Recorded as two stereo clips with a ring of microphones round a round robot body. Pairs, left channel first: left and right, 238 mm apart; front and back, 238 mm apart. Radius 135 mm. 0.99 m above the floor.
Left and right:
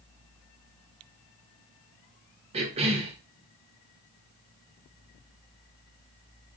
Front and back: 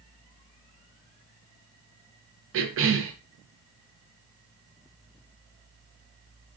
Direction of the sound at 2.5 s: 155° right.